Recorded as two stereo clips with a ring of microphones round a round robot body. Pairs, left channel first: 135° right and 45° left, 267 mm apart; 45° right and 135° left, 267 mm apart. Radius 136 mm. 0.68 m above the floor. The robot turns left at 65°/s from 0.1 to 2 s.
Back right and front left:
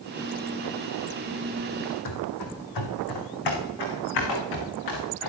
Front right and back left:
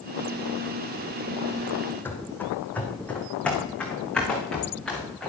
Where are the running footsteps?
130° right, 2.5 m; by 5.3 s 135° right, 5 m.